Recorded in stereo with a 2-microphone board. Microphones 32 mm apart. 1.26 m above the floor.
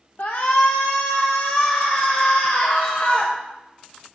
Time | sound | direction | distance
0.2 | a shout | 60° left (ahead or behind) | 1.1 m